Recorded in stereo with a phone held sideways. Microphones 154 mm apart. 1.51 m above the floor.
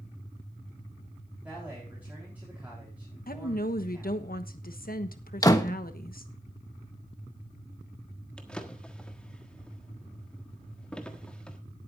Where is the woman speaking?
70° left (ahead or behind), 1.2 m.